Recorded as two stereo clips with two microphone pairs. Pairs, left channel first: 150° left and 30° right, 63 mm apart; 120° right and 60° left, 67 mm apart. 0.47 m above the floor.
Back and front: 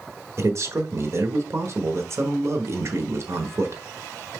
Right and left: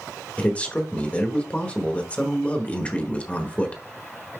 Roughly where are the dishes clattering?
No dishes clattering in this recording.